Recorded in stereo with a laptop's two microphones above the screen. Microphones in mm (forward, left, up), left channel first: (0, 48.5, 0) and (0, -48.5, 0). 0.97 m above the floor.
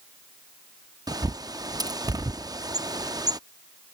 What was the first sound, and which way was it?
A bird, 40° right (ahead or behind).